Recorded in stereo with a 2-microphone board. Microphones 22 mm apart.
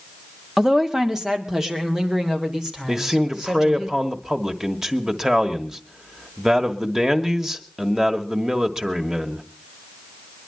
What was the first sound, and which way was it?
A woman speaking, 20° right (ahead or behind).